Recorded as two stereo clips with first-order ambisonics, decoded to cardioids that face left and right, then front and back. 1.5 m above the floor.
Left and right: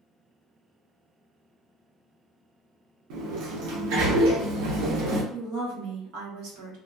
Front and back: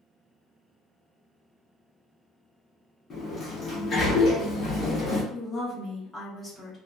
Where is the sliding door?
65° right, 0.8 m.